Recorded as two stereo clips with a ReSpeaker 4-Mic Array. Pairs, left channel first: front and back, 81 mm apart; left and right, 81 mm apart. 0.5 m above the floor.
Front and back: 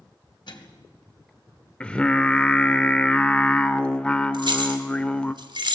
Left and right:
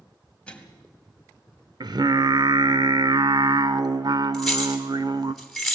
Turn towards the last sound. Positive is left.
turn(degrees=175)